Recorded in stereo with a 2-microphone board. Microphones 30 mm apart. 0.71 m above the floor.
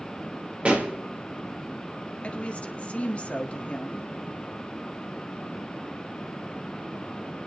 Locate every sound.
0.7 s a pop: 40° right (ahead or behind), 3 m
2.2 s a woman speaking: 45° left (ahead or behind), 1.6 m